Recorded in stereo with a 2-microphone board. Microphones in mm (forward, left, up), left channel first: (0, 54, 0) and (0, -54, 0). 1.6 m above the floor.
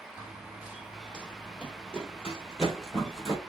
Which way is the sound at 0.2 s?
15° right (ahead or behind).